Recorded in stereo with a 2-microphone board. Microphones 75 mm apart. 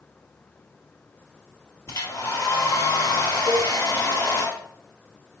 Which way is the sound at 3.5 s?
45° left (ahead or behind).